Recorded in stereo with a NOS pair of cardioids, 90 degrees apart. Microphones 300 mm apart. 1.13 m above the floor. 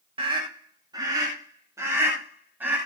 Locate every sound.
0.2 s a scream: 20° right, 4 m; by 2.8 s 5° right, 6 m